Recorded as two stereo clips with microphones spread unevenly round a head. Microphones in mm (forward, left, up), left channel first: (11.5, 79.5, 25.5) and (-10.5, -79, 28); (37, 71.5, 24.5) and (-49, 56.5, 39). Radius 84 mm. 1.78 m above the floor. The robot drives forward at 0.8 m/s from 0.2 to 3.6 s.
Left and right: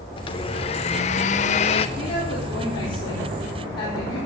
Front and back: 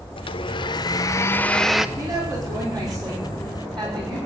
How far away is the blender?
About 1.4 m.